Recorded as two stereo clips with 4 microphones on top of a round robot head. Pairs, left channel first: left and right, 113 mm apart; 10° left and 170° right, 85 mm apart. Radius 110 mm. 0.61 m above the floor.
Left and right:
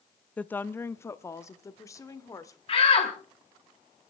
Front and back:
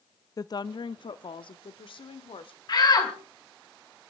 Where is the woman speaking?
15° left, 0.6 m; by 2.6 s 25° left, 1.9 m.